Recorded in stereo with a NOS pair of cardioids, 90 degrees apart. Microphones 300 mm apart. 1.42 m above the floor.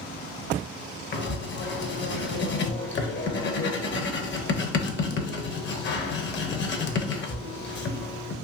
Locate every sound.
1.1 s writing: 40° left, 0.7 m